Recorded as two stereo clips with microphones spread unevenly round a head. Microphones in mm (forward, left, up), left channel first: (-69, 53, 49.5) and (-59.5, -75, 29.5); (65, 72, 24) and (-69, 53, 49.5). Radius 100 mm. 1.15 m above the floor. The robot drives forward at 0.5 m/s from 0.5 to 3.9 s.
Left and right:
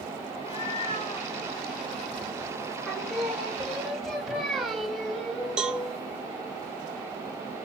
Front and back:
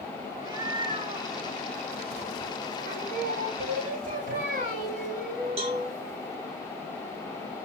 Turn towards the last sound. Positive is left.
turn(degrees=-175)